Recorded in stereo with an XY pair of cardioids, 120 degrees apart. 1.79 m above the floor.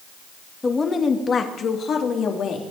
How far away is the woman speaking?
About 2 m.